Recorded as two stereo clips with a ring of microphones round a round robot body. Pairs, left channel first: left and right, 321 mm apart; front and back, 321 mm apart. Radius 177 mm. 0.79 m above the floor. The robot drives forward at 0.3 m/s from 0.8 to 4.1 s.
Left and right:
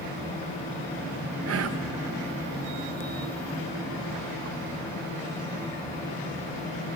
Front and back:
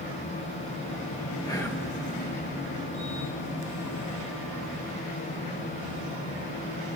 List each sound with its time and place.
1.4 s whispering: 70° right, 0.6 m; by 1.9 s 90° right, 0.6 m